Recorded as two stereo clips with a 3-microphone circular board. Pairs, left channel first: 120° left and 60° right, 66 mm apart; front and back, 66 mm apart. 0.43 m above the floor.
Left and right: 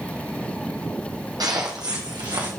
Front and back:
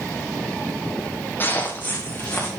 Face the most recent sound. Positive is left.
turn(degrees=-65)